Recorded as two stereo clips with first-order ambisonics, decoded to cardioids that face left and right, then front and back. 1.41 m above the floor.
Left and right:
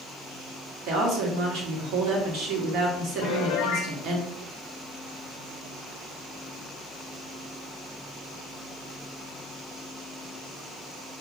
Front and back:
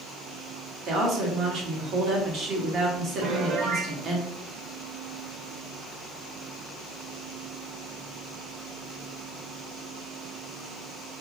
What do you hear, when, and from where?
0.9 s a woman speaking: 130° right, 1.2 m
3.2 s a piano: 125° left, 0.5 m